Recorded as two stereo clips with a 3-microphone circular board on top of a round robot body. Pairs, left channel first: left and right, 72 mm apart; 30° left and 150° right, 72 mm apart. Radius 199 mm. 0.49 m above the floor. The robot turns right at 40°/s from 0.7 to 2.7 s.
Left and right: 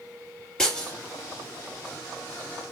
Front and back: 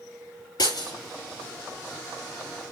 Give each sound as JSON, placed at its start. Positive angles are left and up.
{"t": 0.6, "sound": "breaking glass", "azimuth_deg": 10, "distance_m": 4.5}